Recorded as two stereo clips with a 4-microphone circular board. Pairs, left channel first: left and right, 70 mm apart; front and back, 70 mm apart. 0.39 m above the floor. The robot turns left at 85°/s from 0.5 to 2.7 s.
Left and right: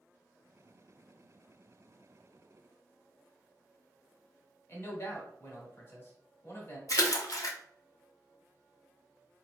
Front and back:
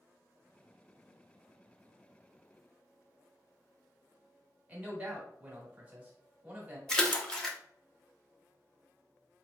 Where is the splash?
80° left, 0.6 m.